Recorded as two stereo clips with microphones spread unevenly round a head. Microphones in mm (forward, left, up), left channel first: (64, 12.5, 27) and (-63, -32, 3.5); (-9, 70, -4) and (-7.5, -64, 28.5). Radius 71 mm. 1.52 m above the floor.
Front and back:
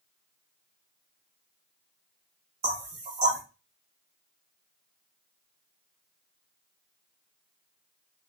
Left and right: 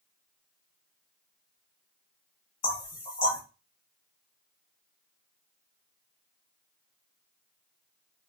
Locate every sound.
2.6 s knocking: 145° left, 1.3 m